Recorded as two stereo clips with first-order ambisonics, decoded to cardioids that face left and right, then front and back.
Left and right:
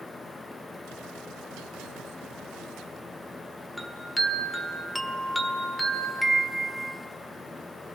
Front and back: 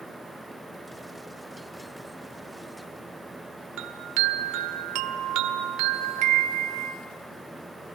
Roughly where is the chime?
Behind.